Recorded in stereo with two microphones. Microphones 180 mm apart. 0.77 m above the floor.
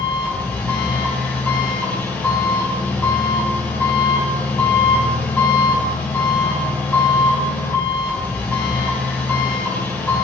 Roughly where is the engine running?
Centre.